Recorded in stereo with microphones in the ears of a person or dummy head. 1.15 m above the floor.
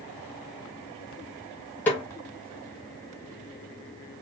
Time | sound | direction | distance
1.9 | a snare drum | 10° left (ahead or behind) | 0.8 m